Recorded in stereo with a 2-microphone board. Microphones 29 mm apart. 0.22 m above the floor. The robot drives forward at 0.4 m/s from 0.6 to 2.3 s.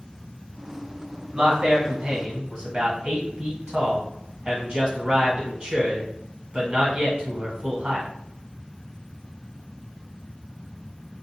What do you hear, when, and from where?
1.3 s a man speaking: 30° right (ahead or behind), 1.7 m